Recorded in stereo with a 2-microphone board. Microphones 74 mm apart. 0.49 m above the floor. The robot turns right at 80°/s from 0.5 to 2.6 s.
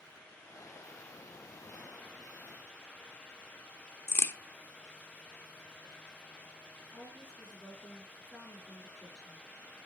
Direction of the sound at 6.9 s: 15° left (ahead or behind).